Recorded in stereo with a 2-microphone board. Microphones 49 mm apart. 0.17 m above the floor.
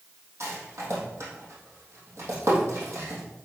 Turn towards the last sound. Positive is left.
turn(degrees=-60)  # may be behind; listen again after turning